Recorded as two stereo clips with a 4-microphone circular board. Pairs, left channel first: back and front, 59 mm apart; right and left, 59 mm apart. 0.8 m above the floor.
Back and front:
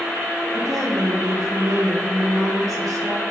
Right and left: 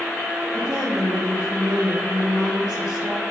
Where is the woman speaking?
15° left, 3 m.